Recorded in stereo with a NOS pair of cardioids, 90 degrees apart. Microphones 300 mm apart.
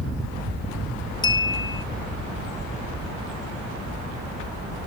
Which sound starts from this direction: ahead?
A clink, at 1.2 s.